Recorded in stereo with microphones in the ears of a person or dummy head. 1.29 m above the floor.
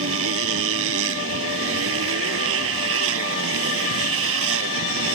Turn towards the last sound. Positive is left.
turn(degrees=-85)